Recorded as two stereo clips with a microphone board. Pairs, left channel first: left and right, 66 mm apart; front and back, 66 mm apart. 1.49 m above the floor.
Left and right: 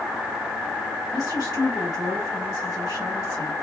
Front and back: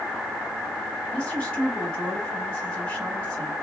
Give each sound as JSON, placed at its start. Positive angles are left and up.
{"t": 1.1, "sound": "a woman speaking", "azimuth_deg": 70, "distance_m": 2.0}